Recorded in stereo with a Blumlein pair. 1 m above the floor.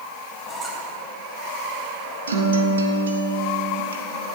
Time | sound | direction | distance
0.5 | a squeak | 15° right | 3 m
2.3 | a guitar | 70° right | 1.5 m